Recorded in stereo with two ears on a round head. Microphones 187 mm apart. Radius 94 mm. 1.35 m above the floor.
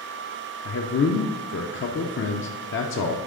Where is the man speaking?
65° left (ahead or behind), 0.6 m.